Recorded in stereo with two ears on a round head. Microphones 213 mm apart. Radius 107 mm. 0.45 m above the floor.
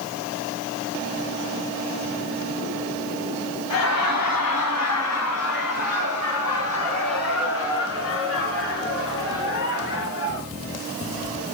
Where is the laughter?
75° left (ahead or behind), 3 m; by 10.5 s 50° left (ahead or behind), 6 m.